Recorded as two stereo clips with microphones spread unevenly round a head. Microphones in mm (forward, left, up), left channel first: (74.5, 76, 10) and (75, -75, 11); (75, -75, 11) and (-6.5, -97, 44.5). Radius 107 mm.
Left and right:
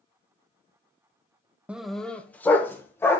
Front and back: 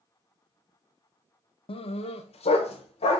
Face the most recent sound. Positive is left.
turn(degrees=15)